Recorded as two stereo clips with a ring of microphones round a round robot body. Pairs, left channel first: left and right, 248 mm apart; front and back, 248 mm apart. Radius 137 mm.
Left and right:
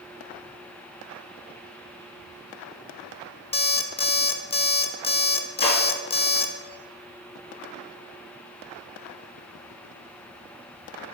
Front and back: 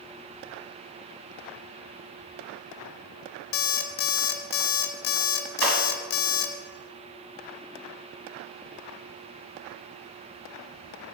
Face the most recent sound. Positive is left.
turn(degrees=155)